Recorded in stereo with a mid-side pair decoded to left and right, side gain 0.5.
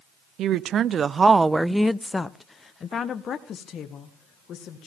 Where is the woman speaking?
65° right, 0.7 m; by 4.9 s 60° left, 1.9 m.